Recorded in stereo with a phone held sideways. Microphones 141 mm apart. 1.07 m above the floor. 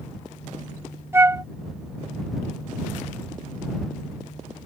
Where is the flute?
15° right (ahead or behind).